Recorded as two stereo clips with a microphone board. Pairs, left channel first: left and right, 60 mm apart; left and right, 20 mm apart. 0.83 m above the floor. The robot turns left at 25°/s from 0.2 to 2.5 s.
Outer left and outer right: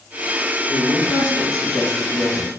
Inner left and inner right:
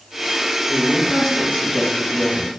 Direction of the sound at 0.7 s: 120° left.